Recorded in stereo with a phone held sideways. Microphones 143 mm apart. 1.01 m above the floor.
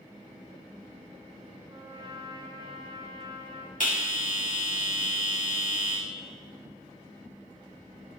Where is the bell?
70° left (ahead or behind), 2 m.